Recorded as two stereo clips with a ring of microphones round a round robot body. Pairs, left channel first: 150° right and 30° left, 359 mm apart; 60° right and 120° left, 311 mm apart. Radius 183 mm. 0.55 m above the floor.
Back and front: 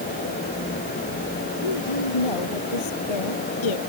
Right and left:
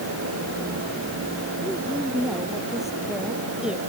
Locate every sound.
1.6 s a woman speaking: 150° right